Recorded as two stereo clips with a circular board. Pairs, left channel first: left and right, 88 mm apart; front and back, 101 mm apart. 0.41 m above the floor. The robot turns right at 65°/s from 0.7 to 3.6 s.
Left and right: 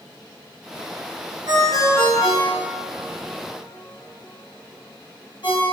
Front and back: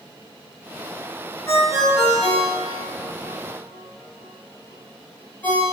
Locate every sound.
1.5 s a ringtone: 70° right, 1.5 m; by 5.6 s 70° left, 1.5 m